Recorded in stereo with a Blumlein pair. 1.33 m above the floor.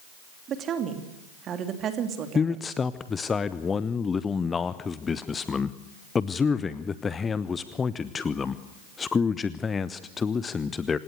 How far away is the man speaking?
About 0.7 m.